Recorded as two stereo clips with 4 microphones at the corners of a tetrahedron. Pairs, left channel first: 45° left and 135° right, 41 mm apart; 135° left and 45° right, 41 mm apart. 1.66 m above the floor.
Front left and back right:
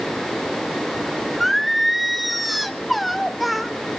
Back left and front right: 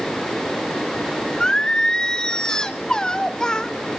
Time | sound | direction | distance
1.4 | singing | 140° left | 0.9 m